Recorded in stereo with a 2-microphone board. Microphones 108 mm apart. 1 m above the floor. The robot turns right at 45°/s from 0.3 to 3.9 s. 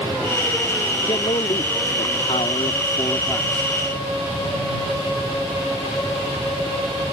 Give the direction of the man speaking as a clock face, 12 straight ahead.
10 o'clock.